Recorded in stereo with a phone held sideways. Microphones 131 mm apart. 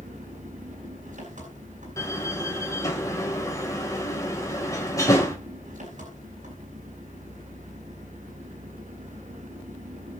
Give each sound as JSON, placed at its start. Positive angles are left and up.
{"t": 0.0, "sound": "an engine running", "side_deg": -70, "distance_m": 9.0}
{"t": 2.0, "sound": "a door slam", "side_deg": 25, "distance_m": 3.5}